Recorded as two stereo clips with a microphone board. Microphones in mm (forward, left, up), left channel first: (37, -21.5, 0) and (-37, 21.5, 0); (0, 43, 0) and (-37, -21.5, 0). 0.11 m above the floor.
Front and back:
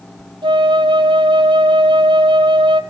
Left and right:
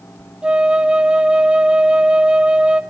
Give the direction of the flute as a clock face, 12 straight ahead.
7 o'clock.